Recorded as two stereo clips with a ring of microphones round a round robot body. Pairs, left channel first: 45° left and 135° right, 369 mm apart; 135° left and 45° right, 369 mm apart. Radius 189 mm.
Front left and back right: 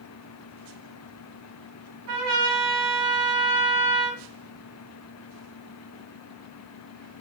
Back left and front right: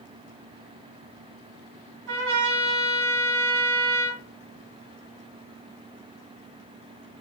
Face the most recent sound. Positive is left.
turn(degrees=-90)